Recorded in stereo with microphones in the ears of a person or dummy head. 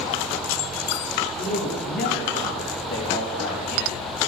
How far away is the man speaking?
About 7 m.